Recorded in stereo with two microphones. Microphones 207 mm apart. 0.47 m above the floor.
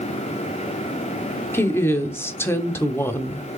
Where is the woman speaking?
10° left (ahead or behind), 0.8 m.